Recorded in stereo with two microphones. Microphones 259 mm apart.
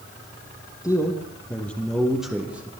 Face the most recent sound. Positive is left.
turn(degrees=-5)  # may be behind; listen again after turning